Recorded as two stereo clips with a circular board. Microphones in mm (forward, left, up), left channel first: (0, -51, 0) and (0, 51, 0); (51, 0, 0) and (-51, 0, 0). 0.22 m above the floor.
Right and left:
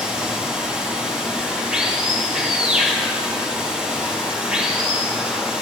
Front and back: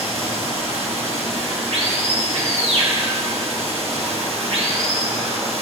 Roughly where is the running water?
Behind.